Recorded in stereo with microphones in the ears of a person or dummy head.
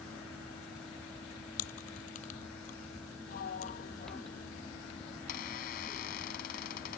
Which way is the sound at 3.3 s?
55° left (ahead or behind).